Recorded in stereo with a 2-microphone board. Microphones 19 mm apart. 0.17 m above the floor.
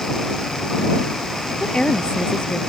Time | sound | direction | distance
1.6 | a woman speaking | 55° left (ahead or behind) | ?